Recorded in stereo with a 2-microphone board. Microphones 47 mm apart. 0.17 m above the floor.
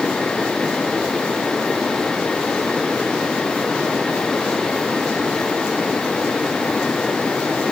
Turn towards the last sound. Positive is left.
No sound to turn to.